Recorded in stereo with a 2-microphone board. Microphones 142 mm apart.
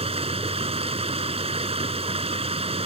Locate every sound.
0.0 s running water: 45° right (ahead or behind)